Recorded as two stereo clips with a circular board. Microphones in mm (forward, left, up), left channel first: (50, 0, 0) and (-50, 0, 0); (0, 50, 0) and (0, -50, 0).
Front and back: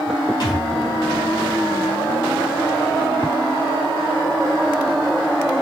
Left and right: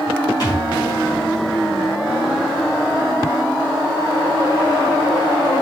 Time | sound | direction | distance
0.4 | a thud | 40° left | 4 m